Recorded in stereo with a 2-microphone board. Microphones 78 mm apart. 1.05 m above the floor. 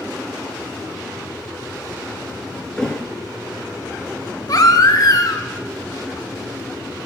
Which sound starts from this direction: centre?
A thud, at 2.8 s.